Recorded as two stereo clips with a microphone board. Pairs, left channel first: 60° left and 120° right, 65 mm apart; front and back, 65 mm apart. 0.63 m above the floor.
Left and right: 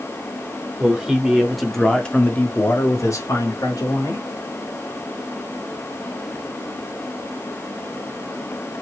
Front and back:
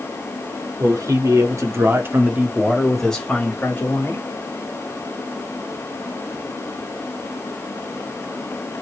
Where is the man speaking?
165° left, 1.6 m; by 4.3 s 50° left, 1.6 m.